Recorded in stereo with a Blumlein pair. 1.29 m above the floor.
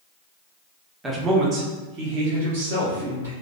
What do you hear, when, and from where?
1.0 s a man speaking: 10° right, 0.7 m; by 3.3 s 60° right, 1.5 m